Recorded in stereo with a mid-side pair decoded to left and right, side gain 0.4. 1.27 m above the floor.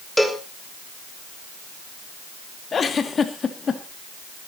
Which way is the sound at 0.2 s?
5° left.